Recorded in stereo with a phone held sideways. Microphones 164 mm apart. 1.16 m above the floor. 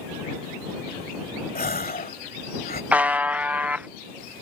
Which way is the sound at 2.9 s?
10° right (ahead or behind).